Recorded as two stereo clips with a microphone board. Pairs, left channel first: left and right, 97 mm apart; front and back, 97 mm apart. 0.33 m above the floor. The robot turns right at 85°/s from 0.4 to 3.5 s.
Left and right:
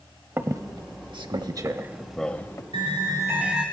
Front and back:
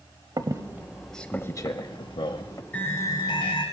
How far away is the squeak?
About 0.6 m.